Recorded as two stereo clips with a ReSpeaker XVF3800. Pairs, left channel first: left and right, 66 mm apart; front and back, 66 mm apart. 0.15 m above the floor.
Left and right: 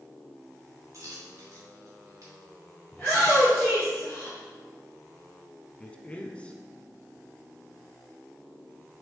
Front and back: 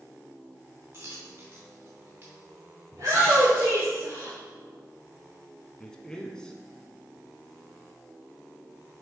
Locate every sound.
0.9 s a dropped coin: 130° right, 3 m
2.9 s a shout: 165° left, 3 m
5.8 s a man speaking: 60° left, 1.0 m